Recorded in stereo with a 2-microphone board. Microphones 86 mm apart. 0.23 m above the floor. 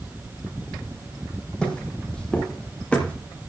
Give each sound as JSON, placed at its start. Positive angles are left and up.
{"t": 1.6, "sound": "footsteps", "side_deg": 10, "distance_m": 6.0}